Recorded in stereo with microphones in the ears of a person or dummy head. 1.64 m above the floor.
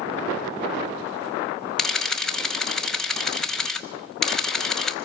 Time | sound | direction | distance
1.8 | a camera shutter | centre (ahead or behind) | 1.2 m